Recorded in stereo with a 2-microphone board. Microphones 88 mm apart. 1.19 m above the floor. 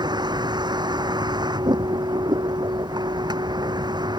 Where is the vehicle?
55° right (ahead or behind).